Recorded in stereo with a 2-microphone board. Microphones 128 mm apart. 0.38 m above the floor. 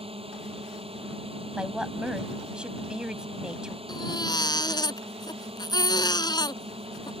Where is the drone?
50° right (ahead or behind).